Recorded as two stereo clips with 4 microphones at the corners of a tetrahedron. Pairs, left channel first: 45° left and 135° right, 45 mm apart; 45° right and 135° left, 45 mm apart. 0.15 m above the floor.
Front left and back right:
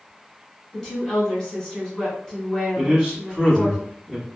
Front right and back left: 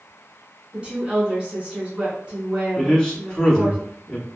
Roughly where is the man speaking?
Right.